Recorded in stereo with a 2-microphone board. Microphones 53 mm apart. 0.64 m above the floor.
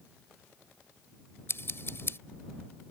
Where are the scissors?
50° left (ahead or behind).